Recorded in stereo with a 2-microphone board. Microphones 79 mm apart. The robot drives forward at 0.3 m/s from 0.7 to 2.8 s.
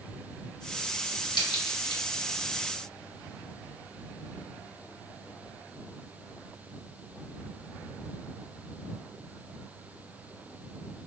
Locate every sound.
1.3 s a crack: 75° left (ahead or behind), 1.6 m; by 2.0 s 80° left, 1.6 m